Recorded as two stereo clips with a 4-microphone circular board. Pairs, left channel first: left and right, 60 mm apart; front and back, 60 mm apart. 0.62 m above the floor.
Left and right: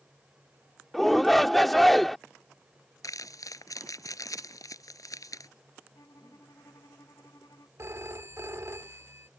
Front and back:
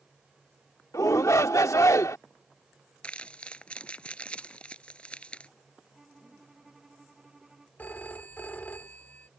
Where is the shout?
5° left.